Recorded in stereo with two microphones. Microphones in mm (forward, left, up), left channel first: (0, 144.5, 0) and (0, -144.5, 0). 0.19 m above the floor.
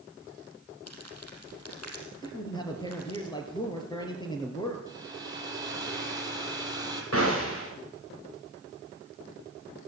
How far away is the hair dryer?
About 5 m.